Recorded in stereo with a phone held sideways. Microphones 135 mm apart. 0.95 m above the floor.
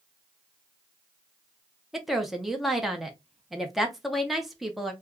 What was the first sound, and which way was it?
A woman speaking, centre (ahead or behind).